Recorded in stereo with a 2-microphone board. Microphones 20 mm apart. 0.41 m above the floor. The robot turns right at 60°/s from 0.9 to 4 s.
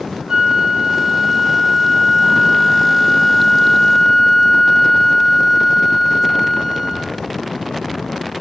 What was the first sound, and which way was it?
A flute, 25° right (ahead or behind).